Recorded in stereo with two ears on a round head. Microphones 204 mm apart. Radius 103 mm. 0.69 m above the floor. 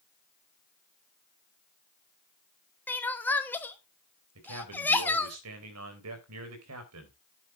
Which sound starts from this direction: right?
A man speaking, at 4.3 s.